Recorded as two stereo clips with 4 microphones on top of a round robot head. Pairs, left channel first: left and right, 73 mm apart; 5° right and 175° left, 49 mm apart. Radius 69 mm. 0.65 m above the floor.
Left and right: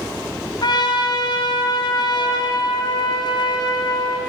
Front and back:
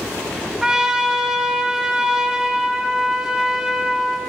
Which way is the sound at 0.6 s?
100° left.